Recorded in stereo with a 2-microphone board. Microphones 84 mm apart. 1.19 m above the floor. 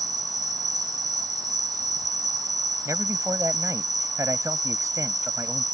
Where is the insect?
55° right (ahead or behind).